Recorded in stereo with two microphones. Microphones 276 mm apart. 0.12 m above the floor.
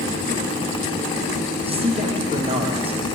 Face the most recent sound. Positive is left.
turn(degrees=-20)  # may be behind; listen again after turning